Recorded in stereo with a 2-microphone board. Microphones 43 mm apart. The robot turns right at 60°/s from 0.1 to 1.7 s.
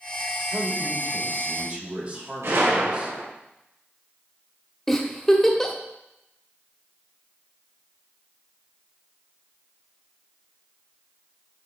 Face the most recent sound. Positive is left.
turn(degrees=10)  # may be behind; listen again after turning